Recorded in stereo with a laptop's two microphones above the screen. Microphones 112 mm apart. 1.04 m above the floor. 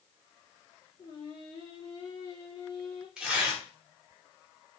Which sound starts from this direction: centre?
Tearing paper, at 3.2 s.